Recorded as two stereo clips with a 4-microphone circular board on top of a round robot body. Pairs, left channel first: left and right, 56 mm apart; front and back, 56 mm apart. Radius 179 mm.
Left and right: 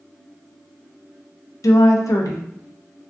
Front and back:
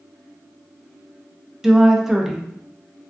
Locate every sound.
1.6 s a woman speaking: 100° left, 0.5 m